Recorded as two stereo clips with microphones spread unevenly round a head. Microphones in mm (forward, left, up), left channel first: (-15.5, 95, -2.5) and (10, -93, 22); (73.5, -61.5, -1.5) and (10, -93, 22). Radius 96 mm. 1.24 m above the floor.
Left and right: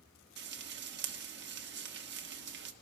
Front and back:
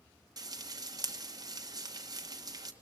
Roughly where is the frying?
Behind right.